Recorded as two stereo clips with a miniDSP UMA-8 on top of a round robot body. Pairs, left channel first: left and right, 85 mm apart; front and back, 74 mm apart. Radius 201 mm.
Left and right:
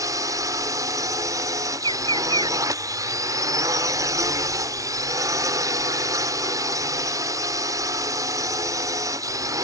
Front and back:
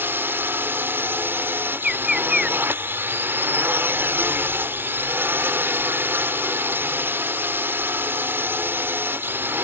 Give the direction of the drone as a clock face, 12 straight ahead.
4 o'clock.